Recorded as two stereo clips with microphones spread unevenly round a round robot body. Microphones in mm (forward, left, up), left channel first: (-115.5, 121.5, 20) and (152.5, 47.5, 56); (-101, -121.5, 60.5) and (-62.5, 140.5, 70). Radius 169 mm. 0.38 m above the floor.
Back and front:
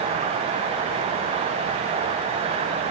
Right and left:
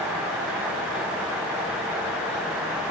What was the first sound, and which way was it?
Only background noise.